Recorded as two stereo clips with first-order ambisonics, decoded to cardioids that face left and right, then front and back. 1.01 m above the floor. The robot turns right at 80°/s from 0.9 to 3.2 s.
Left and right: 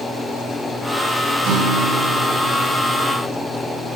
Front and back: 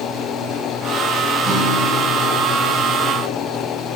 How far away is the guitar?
About 4 m.